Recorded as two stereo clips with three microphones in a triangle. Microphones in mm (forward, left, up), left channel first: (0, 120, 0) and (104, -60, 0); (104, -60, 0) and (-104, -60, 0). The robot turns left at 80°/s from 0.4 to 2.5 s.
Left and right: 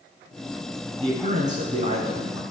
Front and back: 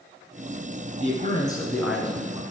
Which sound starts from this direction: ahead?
A man speaking, at 1.0 s.